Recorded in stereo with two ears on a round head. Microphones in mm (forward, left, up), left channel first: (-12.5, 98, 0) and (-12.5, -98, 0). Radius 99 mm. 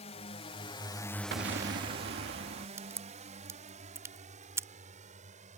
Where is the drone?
30° left (ahead or behind); by 5.6 s 35° right (ahead or behind).